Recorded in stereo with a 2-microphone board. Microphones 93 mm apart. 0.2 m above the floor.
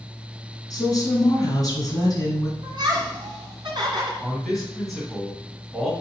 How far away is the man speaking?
About 1.8 m.